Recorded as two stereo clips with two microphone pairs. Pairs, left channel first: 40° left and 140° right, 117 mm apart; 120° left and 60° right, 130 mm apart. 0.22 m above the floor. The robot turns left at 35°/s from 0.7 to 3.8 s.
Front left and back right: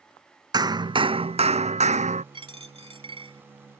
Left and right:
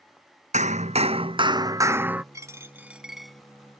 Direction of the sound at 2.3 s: 120° right.